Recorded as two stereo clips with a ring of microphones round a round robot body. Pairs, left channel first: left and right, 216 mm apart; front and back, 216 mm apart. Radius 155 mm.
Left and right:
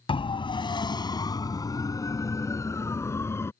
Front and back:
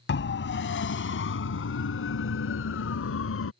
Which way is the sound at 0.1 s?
25° left.